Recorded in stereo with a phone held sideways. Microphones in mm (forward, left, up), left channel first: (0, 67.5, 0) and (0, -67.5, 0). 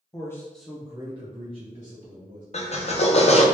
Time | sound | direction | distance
0.1 | a man speaking | 25° left (ahead or behind) | 0.9 m
2.5 | a drill | 50° left (ahead or behind) | 0.6 m